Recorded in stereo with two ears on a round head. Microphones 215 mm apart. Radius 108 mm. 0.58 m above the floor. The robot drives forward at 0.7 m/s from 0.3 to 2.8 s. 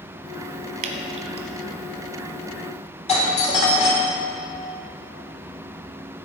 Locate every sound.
0.8 s dripping: 35° right (ahead or behind), 1.3 m; by 1.5 s 25° right (ahead or behind), 1.7 m
3.1 s a doorbell: 30° left (ahead or behind), 2 m